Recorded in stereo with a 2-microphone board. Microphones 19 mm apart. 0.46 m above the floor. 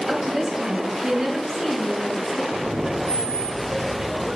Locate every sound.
0.1 s a woman speaking: 40° right (ahead or behind), 3.5 m; by 2.4 s 25° right (ahead or behind), 5.5 m
2.5 s laughter: 80° right, 7.5 m